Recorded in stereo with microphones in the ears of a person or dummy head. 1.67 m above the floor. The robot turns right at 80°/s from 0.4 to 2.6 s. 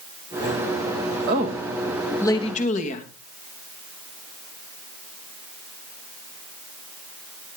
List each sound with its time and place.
1.3 s a woman speaking: 60° right, 2.5 m; by 3.1 s 45° left, 2.5 m